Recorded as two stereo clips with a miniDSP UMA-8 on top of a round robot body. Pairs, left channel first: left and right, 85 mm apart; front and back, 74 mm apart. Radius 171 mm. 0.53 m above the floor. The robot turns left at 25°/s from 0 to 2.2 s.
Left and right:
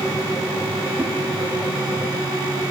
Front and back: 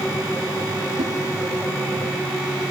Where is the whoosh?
160° right, 0.8 m; by 1.1 s 165° right, 0.8 m.